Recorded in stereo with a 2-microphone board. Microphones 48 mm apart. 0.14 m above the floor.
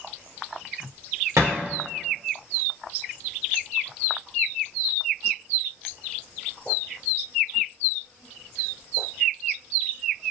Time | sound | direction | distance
1.4 | a thud | 90° right | 1.5 m